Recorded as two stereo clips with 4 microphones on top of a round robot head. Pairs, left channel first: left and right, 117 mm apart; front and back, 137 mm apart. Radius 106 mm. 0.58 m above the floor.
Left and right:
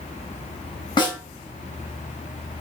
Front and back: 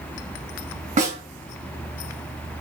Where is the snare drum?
140° left, 3 m.